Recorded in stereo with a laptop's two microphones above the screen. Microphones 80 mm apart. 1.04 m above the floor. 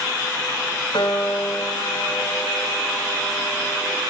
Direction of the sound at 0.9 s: 70° left (ahead or behind).